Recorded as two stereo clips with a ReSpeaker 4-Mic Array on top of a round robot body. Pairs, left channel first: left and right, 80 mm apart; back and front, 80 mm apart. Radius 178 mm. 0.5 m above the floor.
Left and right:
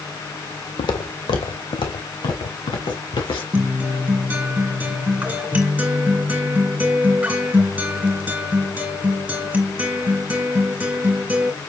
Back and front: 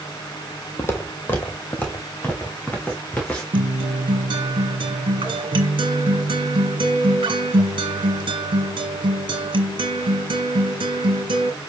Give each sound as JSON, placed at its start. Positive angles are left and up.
{"t": 0.8, "sound": "footsteps", "azimuth_deg": 120, "distance_m": 1.3}
{"t": 3.5, "sound": "a guitar", "azimuth_deg": -15, "distance_m": 2.0}